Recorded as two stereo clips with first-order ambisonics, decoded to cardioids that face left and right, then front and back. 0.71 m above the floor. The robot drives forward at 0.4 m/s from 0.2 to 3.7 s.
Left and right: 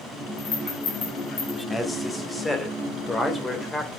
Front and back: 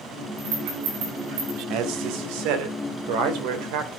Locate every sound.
0.4 s a rattle: 155° left, 7 m
1.7 s a man speaking: 170° left, 1.8 m; by 3.9 s 175° left, 2.5 m